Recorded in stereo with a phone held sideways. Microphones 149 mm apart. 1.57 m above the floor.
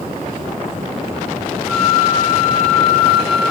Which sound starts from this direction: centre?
A flute, at 1.7 s.